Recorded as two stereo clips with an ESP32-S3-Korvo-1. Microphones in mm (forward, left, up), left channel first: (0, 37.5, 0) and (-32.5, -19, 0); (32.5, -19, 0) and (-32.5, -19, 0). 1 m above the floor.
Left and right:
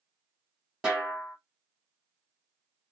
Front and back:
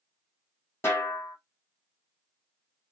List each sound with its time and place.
0.8 s a snare drum: 40° right, 1.3 m